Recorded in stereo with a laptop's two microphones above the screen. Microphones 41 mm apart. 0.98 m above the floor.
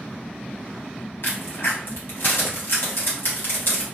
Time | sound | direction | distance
1.2 | a crack | 65° left (ahead or behind) | 1.2 m